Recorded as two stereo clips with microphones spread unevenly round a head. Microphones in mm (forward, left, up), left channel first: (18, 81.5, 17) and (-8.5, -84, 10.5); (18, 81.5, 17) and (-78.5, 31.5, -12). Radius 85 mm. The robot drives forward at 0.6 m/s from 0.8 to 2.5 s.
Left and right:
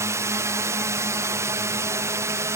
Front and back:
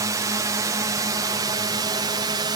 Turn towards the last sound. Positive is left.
turn(degrees=-165)